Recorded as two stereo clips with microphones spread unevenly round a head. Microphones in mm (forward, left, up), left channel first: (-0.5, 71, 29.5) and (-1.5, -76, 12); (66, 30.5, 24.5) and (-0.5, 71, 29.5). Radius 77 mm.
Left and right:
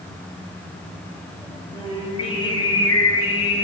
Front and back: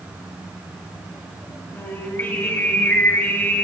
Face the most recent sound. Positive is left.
turn(degrees=35)